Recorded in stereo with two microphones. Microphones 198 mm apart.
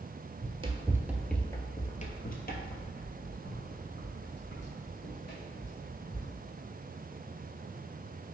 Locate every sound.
0.4 s running footsteps: 35° right (ahead or behind), 0.7 m; by 6.3 s 70° left (ahead or behind), 2.5 m